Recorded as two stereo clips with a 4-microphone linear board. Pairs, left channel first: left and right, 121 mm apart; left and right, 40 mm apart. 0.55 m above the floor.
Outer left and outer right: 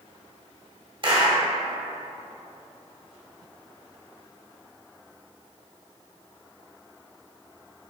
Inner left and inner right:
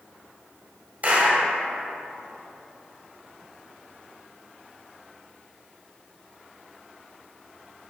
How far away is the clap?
About 1.9 m.